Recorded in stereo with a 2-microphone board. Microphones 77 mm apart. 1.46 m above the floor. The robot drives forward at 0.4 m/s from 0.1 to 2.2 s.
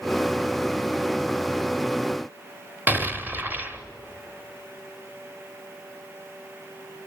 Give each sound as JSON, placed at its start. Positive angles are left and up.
{"t": 2.9, "sound": "an explosion", "side_deg": -25, "distance_m": 1.1}